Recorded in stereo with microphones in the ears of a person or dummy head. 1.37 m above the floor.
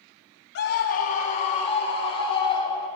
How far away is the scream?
About 1.8 m.